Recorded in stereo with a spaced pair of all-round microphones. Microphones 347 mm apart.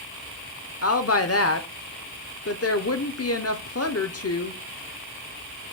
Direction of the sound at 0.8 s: 45° left (ahead or behind).